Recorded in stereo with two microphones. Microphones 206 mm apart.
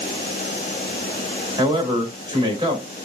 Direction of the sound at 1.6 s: 20° right (ahead or behind).